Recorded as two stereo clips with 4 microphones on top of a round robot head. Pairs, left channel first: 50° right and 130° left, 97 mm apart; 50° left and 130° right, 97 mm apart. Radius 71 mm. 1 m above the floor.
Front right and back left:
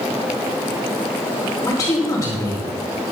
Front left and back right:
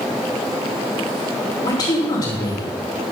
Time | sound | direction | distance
1.6 | a man speaking | 10° left | 3 m